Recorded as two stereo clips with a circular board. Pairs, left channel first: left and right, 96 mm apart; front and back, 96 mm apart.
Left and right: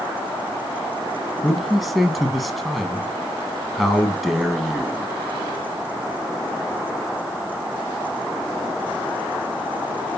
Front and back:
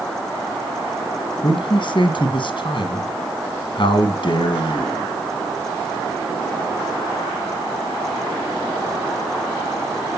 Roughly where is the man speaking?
Ahead.